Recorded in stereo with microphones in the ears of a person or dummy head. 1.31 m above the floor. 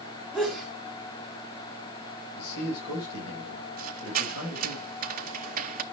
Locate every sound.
0.3 s a sneeze: centre (ahead or behind), 3 m
2.4 s a man speaking: 55° left (ahead or behind), 5.5 m
3.8 s a squeak: 50° right (ahead or behind), 0.9 m